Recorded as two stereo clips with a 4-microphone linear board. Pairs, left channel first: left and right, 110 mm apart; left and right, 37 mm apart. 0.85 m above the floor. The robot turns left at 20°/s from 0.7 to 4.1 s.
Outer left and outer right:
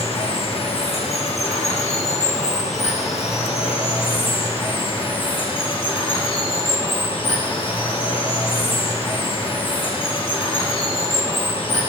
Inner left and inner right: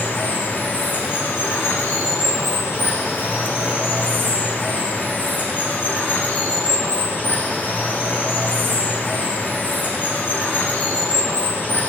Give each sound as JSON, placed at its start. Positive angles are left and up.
{"t": 0.0, "sound": "running water", "azimuth_deg": 120, "distance_m": 0.8}